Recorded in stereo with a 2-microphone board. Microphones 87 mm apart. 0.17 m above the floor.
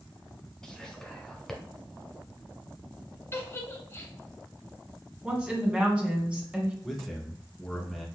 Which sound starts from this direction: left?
A giggle, at 3.3 s.